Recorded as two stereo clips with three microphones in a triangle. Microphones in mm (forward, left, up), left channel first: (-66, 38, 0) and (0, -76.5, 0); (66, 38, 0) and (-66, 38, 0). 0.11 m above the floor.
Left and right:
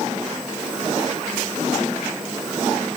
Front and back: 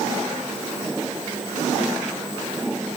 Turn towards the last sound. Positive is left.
No sound to turn to.